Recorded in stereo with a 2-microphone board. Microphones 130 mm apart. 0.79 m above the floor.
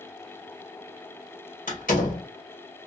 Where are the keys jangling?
I don't hear keys jangling.